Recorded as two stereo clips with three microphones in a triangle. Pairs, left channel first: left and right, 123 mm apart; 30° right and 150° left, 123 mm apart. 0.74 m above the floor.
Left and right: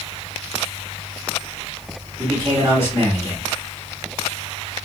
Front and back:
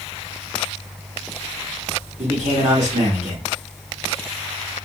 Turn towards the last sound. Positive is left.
turn(degrees=160)